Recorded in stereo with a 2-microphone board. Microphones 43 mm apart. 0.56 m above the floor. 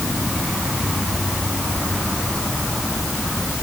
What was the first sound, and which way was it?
Only background noise.